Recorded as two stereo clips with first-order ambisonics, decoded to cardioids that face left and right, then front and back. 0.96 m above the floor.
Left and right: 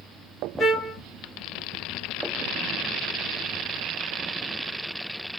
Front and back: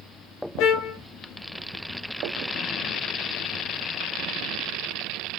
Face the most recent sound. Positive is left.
turn(degrees=10)